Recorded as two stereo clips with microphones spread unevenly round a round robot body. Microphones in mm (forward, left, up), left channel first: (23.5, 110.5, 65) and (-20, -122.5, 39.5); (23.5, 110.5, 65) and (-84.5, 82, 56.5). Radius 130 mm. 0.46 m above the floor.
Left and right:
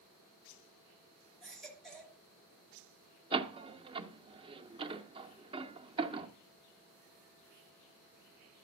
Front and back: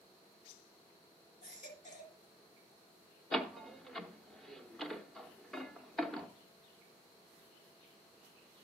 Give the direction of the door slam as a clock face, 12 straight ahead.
3 o'clock.